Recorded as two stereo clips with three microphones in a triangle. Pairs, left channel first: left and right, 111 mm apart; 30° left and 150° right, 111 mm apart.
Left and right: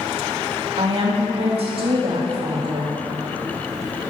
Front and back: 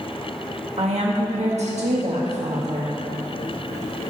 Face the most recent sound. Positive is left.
turn(degrees=-130)